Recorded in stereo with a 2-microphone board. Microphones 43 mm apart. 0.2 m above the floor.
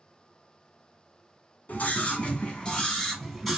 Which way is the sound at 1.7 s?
45° left (ahead or behind).